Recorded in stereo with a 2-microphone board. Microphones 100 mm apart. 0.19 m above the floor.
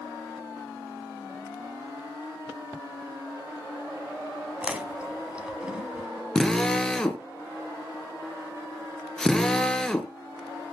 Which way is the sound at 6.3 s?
5° left (ahead or behind).